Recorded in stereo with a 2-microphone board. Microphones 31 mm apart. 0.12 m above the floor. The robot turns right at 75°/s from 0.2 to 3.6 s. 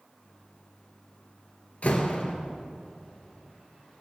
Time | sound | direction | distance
1.8 | a door slam | 80° left | 1.7 m